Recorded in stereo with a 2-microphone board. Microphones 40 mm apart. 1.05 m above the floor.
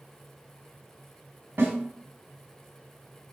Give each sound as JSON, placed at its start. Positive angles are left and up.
{"t": 1.6, "sound": "a snare drum", "side_deg": -65, "distance_m": 1.6}